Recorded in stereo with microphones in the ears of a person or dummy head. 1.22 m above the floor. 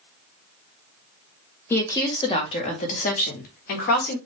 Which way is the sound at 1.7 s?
10° left (ahead or behind).